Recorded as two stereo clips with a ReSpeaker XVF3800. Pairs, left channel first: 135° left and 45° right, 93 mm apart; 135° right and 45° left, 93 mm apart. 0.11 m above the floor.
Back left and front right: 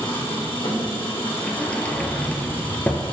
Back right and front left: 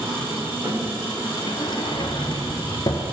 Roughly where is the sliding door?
Behind right.